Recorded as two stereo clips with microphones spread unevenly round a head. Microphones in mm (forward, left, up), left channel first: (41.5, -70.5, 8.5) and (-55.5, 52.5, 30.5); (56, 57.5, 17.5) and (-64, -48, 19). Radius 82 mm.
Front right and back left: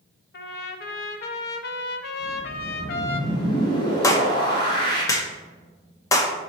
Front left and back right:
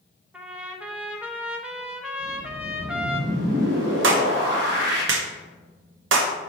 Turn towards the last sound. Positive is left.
turn(degrees=-125)